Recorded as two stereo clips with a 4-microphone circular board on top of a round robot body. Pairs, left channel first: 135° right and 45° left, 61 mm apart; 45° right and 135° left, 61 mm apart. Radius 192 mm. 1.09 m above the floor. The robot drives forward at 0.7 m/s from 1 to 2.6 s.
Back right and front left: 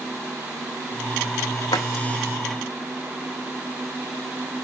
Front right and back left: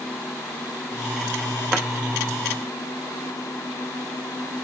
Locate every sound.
1.7 s a drawer: 145° right, 0.6 m; by 1.9 s 155° right, 0.6 m